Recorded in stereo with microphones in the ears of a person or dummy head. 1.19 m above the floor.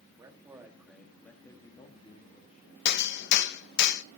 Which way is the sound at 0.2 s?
20° right (ahead or behind).